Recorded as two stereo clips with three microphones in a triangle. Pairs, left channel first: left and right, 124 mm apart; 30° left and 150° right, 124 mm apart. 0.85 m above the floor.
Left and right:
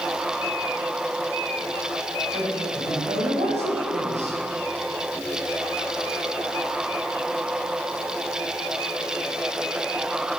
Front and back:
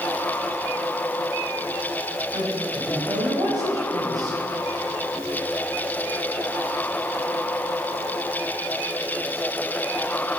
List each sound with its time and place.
2.3 s a woman speaking: 95° right, 4 m